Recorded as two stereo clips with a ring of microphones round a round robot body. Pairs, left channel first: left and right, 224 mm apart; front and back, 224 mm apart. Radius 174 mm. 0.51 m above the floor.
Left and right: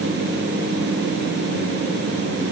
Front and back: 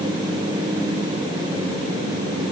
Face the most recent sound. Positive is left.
No sound to turn to.